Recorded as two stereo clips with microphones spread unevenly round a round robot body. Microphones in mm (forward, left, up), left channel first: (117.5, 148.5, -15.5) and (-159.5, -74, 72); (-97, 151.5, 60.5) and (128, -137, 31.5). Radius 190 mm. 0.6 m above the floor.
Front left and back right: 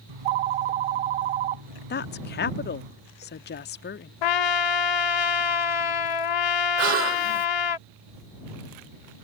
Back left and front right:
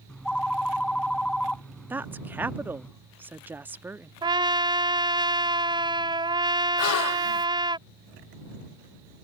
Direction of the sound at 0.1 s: 145° right.